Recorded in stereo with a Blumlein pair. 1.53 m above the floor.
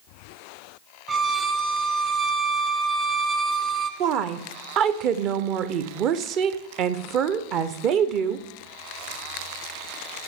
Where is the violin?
15° right, 0.7 m.